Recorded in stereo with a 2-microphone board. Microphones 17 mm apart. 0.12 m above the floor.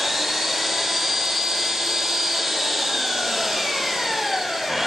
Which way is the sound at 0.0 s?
15° right (ahead or behind).